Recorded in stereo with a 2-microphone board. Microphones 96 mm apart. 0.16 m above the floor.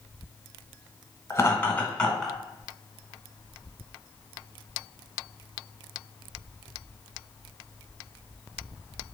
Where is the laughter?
30° left (ahead or behind), 1.1 m; by 2.4 s centre (ahead or behind), 1.2 m.